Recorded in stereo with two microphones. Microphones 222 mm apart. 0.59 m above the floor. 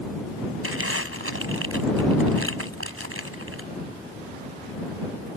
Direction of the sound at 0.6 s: 75° right (ahead or behind).